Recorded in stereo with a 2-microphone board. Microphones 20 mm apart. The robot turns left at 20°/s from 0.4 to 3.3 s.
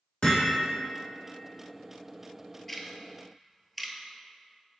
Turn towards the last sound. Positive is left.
turn(degrees=-5)  # may be behind; listen again after turning